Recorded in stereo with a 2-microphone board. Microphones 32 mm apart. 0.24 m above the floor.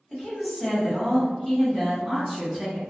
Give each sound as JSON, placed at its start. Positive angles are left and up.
{"t": 0.1, "sound": "a woman speaking", "side_deg": 20, "distance_m": 1.7}